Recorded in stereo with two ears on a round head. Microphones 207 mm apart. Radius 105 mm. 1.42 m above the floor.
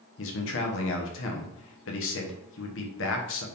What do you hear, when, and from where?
0.2 s a man speaking: 55° left (ahead or behind), 1.1 m